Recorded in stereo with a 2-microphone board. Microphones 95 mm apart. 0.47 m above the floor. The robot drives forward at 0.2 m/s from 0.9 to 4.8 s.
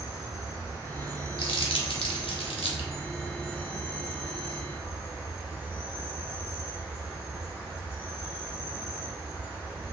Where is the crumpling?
65° left (ahead or behind), 0.5 m; by 2.9 s 75° left (ahead or behind), 0.5 m.